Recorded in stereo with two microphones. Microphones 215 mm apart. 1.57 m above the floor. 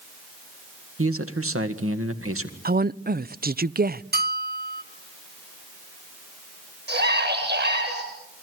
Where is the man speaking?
85° right, 1.9 m.